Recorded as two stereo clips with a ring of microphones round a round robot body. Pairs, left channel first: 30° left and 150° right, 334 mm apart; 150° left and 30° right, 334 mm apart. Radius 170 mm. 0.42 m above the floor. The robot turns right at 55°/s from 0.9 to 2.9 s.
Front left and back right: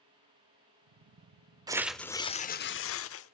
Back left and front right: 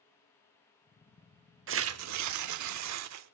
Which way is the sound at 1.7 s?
75° right.